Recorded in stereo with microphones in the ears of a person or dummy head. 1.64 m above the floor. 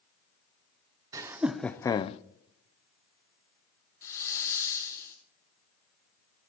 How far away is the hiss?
About 2 m.